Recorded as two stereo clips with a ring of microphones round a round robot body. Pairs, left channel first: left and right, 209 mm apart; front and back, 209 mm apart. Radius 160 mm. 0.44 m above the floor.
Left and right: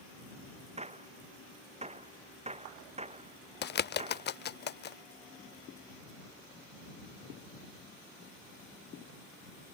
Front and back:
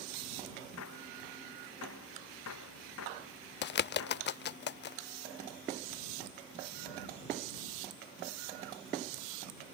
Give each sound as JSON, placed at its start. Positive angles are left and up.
{"t": 0.8, "sound": "a gunshot", "azimuth_deg": -30}
{"t": 3.6, "sound": "a bird", "azimuth_deg": 45}